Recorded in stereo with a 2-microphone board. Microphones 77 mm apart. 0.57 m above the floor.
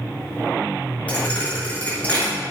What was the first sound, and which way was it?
A thud, 15° left (ahead or behind).